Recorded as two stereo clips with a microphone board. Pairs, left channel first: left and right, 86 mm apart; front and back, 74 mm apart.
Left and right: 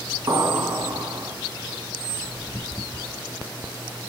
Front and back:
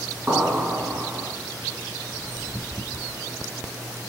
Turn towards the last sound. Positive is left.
turn(degrees=-110)